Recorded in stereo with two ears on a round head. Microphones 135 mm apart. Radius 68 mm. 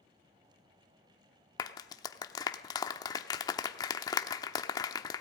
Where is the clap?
25° left (ahead or behind), 0.9 m.